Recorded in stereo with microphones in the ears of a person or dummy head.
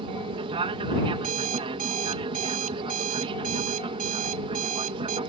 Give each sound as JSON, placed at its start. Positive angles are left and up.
{"t": 0.0, "sound": "an aircraft", "side_deg": -30}
{"t": 1.1, "sound": "an alarm clock", "side_deg": -45}